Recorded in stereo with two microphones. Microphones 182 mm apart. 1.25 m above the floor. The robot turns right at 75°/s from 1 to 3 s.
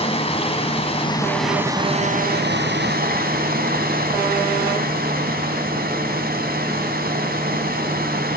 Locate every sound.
0.0 s running water: 145° left, 3 m; by 8.4 s 65° right, 3 m